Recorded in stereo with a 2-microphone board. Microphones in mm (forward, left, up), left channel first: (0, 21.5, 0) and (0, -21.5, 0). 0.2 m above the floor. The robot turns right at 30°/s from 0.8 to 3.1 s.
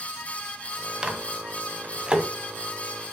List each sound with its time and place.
1.0 s a microwave: 25° right (ahead or behind), 1.2 m